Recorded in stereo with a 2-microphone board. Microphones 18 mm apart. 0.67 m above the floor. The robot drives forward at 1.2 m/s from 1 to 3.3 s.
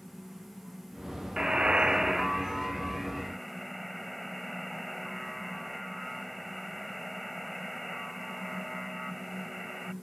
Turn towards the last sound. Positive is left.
turn(degrees=-5)  # may be behind; listen again after turning